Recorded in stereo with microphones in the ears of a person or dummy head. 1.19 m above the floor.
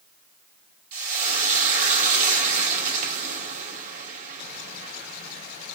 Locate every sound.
0.9 s frying: 40° right (ahead or behind), 0.9 m